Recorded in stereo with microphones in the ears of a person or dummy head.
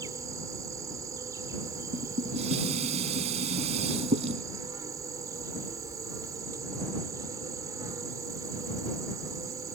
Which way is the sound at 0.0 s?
15° right (ahead or behind).